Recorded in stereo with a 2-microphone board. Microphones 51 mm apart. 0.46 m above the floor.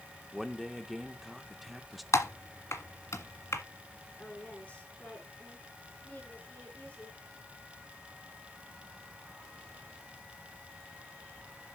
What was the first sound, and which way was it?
A man speaking, 5° right (ahead or behind).